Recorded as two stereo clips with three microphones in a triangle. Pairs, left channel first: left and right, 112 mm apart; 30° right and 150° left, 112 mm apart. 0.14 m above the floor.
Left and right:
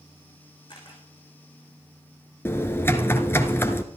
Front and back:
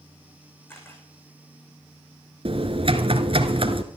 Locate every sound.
0.7 s a camera shutter: 40° left, 7 m
2.5 s typing on a keyboard: 155° left, 1.5 m